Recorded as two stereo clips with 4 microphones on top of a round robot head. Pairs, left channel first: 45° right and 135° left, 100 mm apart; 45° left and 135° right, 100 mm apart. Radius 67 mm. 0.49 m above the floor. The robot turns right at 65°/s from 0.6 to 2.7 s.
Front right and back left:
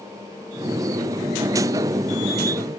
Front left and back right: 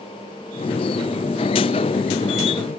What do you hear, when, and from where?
Only background noise.